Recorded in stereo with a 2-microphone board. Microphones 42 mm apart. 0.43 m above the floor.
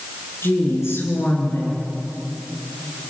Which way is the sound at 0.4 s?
80° left.